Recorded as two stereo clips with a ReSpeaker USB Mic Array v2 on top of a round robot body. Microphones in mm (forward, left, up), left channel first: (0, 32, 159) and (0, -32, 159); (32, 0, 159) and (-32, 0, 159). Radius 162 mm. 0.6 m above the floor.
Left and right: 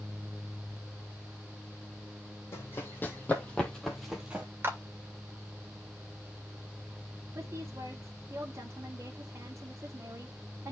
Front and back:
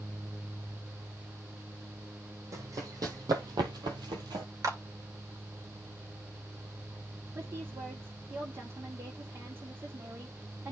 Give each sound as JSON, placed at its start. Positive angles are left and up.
{"t": 2.5, "sound": "running footsteps", "azimuth_deg": 145, "distance_m": 1.8}
{"t": 4.6, "sound": "a clap", "azimuth_deg": -145, "distance_m": 2.0}
{"t": 7.3, "sound": "a woman speaking", "azimuth_deg": -135, "distance_m": 2.0}